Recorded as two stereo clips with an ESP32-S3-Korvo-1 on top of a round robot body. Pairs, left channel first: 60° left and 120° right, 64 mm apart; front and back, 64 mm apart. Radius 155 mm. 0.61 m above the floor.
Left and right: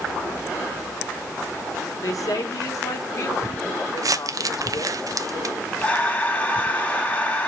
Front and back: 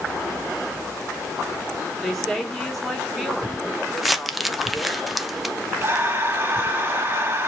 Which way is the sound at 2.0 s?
85° left.